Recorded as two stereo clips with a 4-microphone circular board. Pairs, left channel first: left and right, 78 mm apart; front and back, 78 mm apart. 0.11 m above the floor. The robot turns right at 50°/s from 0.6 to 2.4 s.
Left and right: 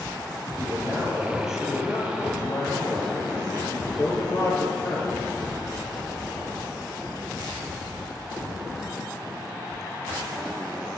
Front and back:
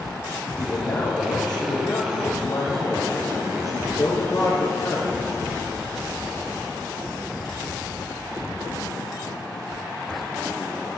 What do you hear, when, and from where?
0.6 s a man speaking: 50° right, 3.5 m; by 5.2 s 40° left, 3.5 m